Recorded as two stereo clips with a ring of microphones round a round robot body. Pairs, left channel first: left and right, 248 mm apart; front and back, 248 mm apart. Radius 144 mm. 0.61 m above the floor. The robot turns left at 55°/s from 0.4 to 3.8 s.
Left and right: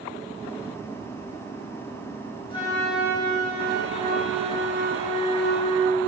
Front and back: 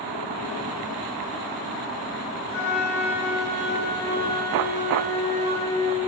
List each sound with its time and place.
2.5 s a flute: 20° left, 4.5 m; by 6.1 s 50° right, 4.5 m